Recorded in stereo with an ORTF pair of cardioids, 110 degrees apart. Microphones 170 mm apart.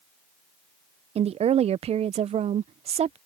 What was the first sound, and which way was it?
A woman speaking, 40° right.